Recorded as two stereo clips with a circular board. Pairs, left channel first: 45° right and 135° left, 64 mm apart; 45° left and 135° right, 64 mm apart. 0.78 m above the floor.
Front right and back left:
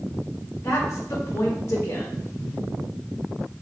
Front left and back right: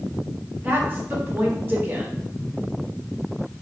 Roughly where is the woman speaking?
Right.